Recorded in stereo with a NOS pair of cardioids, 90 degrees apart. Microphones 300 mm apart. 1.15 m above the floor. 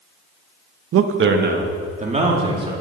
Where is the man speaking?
55° right, 0.8 m; by 2.7 s 20° right, 2.5 m.